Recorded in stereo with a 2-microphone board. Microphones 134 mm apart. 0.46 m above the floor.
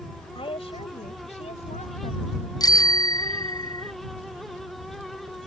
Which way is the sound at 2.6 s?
35° left (ahead or behind).